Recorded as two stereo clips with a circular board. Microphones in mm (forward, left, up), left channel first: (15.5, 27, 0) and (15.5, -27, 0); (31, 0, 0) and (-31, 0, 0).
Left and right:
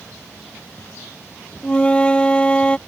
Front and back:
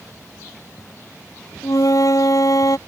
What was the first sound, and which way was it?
A flute, 20° left.